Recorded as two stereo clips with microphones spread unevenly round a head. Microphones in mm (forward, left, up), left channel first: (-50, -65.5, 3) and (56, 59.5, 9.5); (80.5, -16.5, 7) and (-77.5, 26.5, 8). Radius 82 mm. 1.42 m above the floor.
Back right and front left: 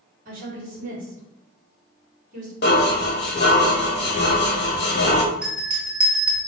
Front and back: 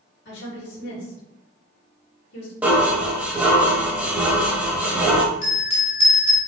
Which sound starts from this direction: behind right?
Dishes clattering, at 2.6 s.